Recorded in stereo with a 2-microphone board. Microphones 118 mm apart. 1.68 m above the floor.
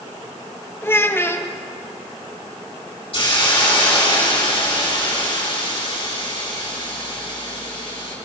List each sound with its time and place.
0.8 s a child speaking: 20° left (ahead or behind), 0.7 m
3.1 s a hiss: 50° left (ahead or behind), 5 m